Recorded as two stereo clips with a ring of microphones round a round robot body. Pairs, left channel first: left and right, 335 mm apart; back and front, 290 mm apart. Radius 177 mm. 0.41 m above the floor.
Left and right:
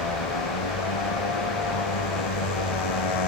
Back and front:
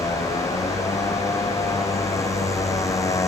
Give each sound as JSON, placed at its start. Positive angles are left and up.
{"t": 0.0, "sound": "a motorcycle", "azimuth_deg": 100}